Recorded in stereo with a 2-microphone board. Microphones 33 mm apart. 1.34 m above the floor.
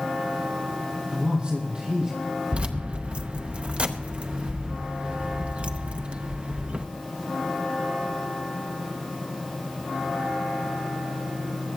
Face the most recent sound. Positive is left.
turn(degrees=-30)  # may be behind; listen again after turning